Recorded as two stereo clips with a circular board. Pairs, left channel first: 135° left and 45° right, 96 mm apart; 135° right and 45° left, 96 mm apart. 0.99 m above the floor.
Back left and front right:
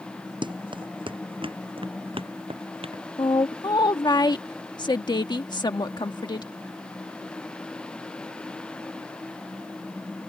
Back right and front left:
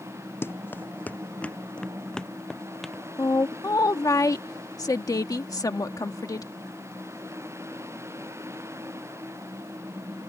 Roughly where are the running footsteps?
Right.